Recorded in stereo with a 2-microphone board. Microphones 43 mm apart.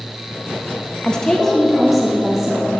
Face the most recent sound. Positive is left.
turn(degrees=-10)  # may be behind; listen again after turning